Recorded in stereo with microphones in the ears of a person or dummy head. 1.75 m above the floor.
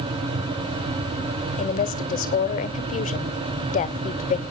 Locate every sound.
1.6 s a woman speaking: 40° left (ahead or behind), 1.0 m